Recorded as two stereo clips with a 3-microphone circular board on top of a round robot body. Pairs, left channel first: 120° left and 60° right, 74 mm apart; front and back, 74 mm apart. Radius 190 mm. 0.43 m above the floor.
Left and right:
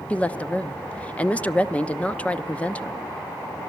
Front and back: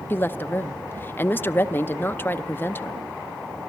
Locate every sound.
0.1 s a woman speaking: 50° left, 1.0 m